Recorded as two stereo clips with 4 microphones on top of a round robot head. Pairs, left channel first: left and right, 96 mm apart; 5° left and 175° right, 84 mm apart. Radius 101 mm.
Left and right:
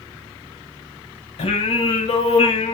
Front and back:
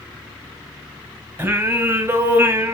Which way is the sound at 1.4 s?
120° left.